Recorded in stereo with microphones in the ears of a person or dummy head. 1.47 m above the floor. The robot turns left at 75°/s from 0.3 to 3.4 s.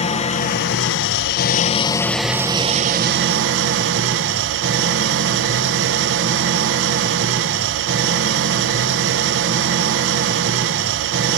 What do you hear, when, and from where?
0.0 s an engine running: 140° left, 1.0 m; by 11.4 s 95° right, 1.0 m